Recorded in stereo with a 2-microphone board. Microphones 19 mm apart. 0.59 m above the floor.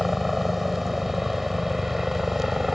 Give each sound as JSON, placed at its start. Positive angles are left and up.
{"t": 0.0, "sound": "a helicopter", "side_deg": -10}